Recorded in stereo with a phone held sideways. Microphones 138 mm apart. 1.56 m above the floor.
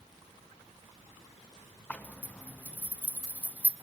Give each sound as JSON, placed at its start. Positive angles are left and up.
{"t": 1.9, "sound": "a zipper", "side_deg": 10, "distance_m": 0.7}